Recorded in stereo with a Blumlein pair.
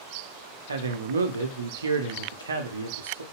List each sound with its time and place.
0.7 s a man speaking: 70° right, 0.5 m